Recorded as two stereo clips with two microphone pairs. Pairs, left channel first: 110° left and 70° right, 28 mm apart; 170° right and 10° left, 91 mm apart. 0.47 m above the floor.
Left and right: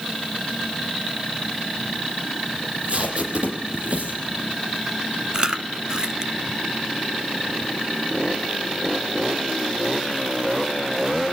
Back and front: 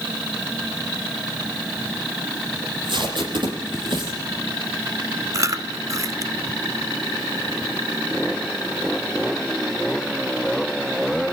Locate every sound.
2.6 s tape being pulled: 20° right, 7 m
5.3 s chewing: 15° right, 1.0 m